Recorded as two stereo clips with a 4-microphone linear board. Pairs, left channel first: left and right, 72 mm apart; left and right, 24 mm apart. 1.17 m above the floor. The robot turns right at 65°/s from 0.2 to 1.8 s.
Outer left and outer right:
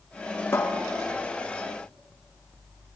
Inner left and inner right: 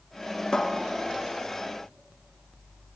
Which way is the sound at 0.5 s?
35° left (ahead or behind).